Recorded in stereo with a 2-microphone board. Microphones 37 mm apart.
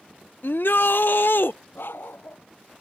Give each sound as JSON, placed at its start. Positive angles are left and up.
{"t": 0.4, "sound": "a shout", "side_deg": 70}
{"t": 1.8, "sound": "a dog barking", "side_deg": 70}